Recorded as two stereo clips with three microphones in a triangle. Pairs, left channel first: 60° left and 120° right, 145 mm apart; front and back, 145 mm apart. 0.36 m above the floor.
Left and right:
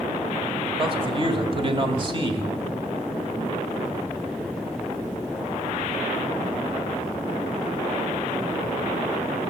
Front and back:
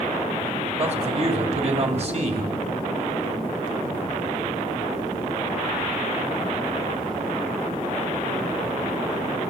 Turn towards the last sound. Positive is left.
turn(degrees=-160)